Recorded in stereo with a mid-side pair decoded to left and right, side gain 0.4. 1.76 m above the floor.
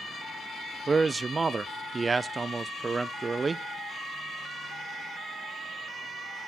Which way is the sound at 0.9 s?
35° right.